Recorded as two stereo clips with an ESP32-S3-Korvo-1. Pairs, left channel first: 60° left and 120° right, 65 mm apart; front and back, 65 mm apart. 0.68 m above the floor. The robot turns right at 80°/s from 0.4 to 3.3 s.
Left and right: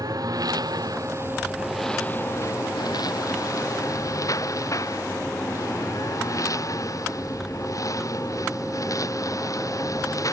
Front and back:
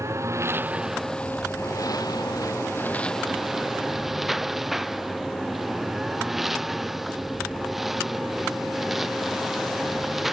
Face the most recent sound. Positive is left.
turn(degrees=95)